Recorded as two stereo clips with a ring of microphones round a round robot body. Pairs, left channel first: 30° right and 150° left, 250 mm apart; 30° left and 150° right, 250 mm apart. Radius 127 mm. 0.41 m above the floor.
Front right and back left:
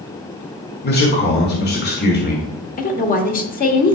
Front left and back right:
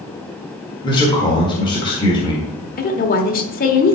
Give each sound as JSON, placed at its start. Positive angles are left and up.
{"t": 0.8, "sound": "a man speaking", "azimuth_deg": -30, "distance_m": 1.6}
{"t": 2.8, "sound": "a woman speaking", "azimuth_deg": 0, "distance_m": 1.4}